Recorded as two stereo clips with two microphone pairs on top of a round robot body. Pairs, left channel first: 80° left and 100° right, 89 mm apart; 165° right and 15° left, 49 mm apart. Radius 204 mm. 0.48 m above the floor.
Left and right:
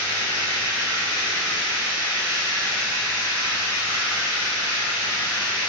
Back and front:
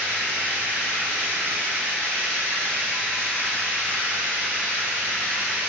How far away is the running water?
About 1.5 m.